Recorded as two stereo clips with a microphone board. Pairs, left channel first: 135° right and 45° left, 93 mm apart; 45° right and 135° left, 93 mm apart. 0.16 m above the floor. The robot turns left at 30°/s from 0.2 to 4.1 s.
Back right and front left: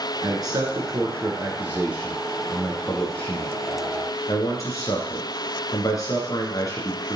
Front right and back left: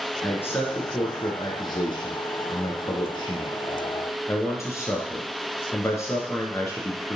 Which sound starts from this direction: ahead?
A man speaking, at 0.2 s.